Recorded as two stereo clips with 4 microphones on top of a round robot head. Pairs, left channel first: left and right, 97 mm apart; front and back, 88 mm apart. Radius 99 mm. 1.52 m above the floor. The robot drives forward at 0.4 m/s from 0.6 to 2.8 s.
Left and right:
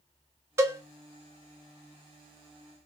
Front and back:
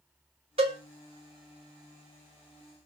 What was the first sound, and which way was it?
A cowbell, 145° right.